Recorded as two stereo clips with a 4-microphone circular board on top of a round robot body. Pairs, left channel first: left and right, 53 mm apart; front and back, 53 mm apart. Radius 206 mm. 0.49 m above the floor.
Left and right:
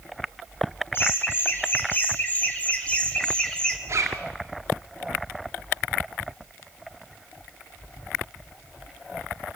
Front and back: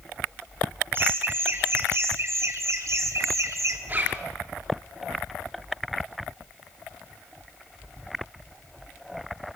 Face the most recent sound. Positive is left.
turn(degrees=-125)